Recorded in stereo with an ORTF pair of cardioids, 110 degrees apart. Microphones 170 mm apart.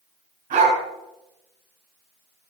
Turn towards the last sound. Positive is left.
turn(degrees=-50)